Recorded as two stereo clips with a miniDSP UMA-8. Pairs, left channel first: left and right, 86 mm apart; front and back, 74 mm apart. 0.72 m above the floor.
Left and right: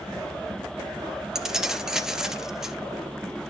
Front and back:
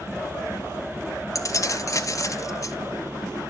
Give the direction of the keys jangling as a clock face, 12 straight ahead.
12 o'clock.